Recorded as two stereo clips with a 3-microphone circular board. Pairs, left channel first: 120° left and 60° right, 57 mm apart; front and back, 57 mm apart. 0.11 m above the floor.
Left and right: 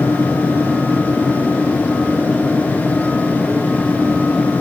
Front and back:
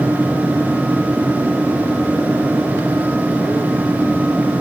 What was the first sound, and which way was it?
Only background noise.